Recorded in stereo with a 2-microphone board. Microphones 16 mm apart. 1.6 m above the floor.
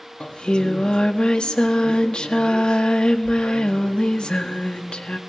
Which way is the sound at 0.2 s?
85° left.